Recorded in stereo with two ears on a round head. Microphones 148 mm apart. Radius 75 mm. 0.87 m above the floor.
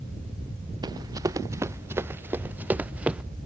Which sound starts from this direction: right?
Running footsteps, at 0.8 s.